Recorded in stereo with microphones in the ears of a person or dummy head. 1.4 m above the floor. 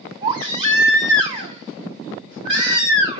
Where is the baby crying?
30° right (ahead or behind), 5.5 m.